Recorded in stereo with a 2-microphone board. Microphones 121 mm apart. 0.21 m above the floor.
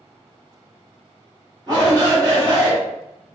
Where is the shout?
35° right (ahead or behind), 1.8 m.